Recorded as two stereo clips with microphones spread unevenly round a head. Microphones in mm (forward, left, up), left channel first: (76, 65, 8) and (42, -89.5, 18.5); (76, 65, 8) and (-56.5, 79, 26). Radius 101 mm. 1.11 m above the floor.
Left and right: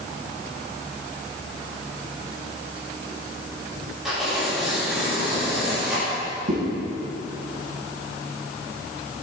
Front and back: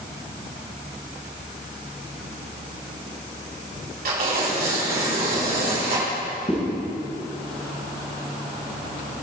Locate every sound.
4.0 s tearing paper: 170° left, 4 m
6.5 s a zipper: 70° right, 3.5 m